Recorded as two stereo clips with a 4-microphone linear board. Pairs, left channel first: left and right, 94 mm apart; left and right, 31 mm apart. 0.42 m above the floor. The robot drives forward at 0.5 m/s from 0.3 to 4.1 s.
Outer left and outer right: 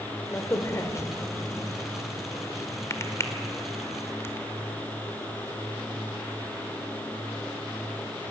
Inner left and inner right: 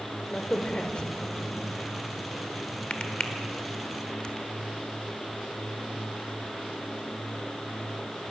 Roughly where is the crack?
Left.